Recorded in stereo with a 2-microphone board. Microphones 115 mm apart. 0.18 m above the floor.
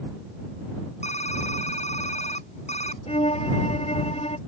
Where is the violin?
60° left (ahead or behind).